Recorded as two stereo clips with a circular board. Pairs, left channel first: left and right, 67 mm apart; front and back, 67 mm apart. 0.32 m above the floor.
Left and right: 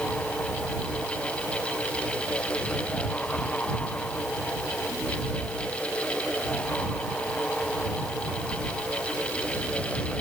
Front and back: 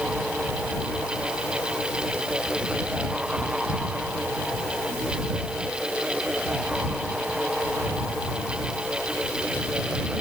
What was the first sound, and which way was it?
Only background noise.